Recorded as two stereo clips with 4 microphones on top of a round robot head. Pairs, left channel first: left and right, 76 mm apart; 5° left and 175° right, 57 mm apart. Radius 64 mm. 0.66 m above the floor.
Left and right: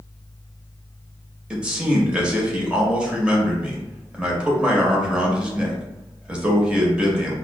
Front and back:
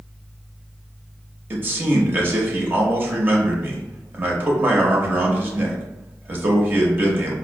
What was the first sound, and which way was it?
A man speaking, 155° right.